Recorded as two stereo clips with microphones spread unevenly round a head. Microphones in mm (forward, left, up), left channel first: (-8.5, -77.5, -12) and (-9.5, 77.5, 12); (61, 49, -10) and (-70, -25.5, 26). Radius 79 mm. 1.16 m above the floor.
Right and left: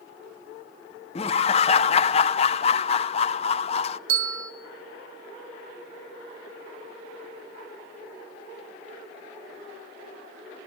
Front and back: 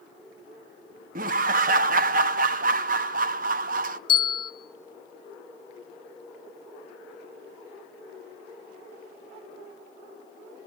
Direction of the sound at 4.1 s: 85° left.